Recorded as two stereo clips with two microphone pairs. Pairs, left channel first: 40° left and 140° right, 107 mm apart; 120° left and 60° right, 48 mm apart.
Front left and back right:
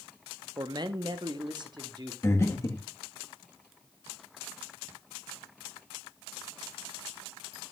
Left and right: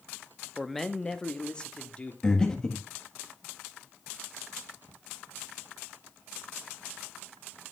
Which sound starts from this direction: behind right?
A man speaking, at 0.6 s.